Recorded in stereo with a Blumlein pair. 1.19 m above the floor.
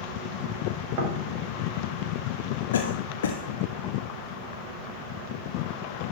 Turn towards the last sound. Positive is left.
turn(degrees=65)